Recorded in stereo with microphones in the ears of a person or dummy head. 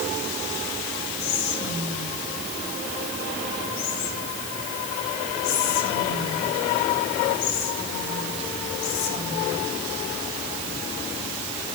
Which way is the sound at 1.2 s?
80° left.